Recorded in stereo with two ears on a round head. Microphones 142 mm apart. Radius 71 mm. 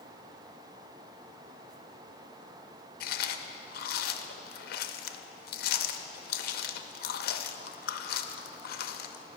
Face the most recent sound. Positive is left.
turn(degrees=60)  # may be behind; listen again after turning